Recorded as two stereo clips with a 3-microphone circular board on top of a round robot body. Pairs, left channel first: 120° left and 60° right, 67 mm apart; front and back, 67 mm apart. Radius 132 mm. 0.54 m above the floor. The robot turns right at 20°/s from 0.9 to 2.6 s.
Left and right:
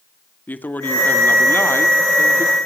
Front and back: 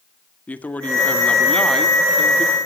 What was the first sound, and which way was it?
A man speaking, 65° left.